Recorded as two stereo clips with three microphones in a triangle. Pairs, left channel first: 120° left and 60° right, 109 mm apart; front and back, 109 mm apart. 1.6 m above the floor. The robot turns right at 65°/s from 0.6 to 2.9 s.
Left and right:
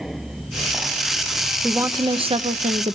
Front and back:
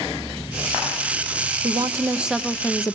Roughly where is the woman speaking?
Behind right.